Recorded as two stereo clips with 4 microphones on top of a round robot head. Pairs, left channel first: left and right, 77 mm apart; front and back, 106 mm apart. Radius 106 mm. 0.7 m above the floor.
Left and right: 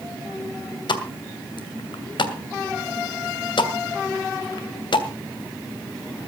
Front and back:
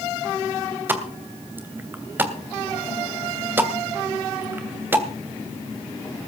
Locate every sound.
0.9 s a pop: 110° left, 2.5 m